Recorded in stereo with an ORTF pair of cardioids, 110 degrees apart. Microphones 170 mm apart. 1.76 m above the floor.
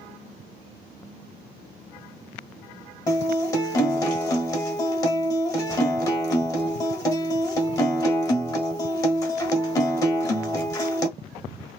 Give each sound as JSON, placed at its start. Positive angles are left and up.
{"t": 3.1, "sound": "a guitar", "azimuth_deg": 20, "distance_m": 0.9}